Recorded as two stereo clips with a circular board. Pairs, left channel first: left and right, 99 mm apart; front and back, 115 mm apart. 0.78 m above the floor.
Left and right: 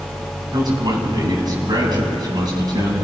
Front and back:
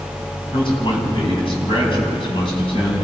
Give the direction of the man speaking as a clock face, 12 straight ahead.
1 o'clock.